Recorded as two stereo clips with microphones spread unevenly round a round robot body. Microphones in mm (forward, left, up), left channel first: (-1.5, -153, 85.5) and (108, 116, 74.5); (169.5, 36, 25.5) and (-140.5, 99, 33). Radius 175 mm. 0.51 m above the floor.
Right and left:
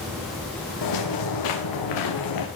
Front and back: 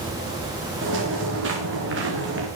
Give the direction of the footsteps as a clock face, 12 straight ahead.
4 o'clock.